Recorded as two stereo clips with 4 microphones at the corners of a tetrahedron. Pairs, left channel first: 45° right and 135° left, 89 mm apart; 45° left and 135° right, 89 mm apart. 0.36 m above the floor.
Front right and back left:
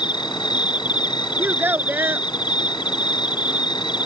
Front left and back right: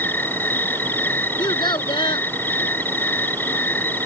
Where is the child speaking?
70° left.